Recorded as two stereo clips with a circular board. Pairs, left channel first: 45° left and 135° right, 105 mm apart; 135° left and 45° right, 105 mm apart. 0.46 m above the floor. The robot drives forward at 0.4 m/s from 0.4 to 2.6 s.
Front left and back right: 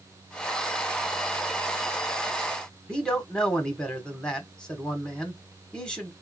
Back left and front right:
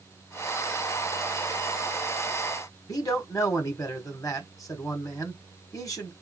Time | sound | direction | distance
2.9 | a man speaking | 120° left | 1.4 m